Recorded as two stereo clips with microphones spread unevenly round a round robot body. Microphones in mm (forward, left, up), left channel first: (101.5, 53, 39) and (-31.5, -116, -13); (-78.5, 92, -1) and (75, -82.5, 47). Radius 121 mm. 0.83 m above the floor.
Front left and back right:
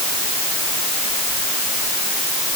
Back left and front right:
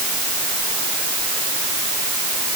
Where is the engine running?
No engine running in this recording.